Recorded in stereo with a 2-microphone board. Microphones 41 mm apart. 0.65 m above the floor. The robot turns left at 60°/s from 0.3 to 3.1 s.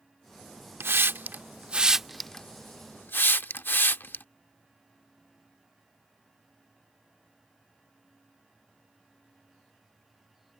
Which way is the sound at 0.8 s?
80° right.